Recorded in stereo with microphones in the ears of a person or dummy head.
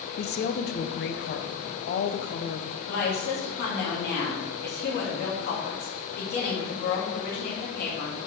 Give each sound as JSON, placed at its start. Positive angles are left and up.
{"t": 0.2, "sound": "a woman speaking", "side_deg": 45, "distance_m": 0.8}
{"t": 2.9, "sound": "a woman speaking", "side_deg": 50, "distance_m": 2.5}